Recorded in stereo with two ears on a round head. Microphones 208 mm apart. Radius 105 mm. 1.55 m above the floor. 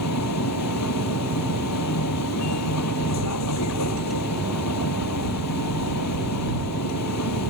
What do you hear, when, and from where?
0.0 s a vehicle: 85° left